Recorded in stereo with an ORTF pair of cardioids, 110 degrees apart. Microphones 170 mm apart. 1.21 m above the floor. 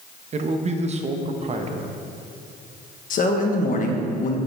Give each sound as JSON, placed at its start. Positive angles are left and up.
{"t": 0.3, "sound": "a man speaking", "azimuth_deg": -40, "distance_m": 0.9}
{"t": 3.1, "sound": "a man speaking", "azimuth_deg": 55, "distance_m": 1.3}